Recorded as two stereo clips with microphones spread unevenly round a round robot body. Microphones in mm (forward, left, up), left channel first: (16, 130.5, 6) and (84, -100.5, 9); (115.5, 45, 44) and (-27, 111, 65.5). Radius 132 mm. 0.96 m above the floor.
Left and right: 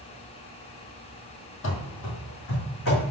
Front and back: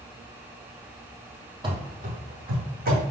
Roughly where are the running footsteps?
Behind left.